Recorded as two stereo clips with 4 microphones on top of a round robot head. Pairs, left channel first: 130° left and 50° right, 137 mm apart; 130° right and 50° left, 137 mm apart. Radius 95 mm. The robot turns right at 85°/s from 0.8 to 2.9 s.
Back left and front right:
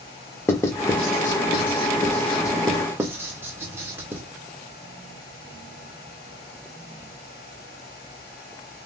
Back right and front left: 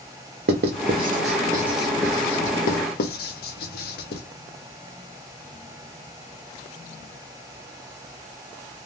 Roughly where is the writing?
Ahead left.